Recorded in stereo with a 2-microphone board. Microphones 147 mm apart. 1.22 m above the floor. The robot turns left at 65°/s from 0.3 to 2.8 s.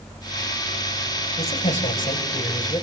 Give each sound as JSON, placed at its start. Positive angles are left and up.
{"t": 1.4, "sound": "a man speaking", "azimuth_deg": 140, "distance_m": 7.5}